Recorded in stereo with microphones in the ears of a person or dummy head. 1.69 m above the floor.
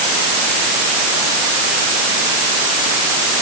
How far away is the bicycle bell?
I don't hear a bicycle bell.